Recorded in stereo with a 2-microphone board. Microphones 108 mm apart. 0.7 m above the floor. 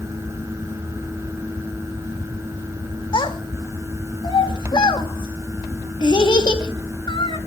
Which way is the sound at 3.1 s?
45° left (ahead or behind).